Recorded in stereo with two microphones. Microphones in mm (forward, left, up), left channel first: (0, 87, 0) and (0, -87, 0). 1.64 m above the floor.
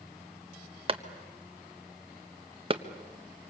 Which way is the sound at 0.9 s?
30° right (ahead or behind).